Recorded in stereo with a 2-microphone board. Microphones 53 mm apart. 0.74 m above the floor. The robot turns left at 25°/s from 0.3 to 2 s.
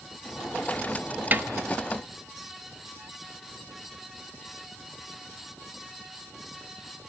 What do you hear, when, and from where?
1.3 s a snare drum: 35° right (ahead or behind), 1.3 m